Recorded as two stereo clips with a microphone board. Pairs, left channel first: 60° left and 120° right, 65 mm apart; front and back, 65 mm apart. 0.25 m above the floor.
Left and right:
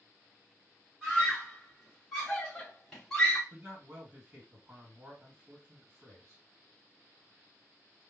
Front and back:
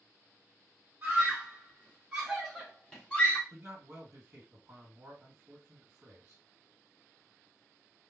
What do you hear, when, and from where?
1.0 s a scream: 160° left, 2 m; by 3.4 s straight ahead, 1.5 m
3.5 s a man speaking: 165° right, 2 m